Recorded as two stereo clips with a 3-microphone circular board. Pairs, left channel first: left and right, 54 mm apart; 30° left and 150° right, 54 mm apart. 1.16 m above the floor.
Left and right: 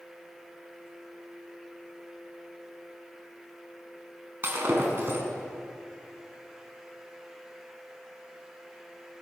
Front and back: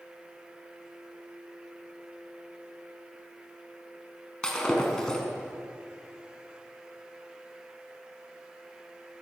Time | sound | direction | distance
4.4 | breaking glass | 45° right | 5.5 m